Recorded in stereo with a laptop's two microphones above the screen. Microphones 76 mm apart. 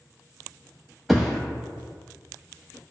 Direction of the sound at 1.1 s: Centre (ahead or behind).